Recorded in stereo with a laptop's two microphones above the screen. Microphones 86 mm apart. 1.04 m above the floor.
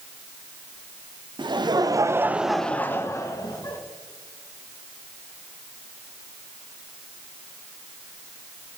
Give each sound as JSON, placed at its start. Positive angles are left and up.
{"t": 1.4, "sound": "laughter", "side_deg": -65, "distance_m": 0.8}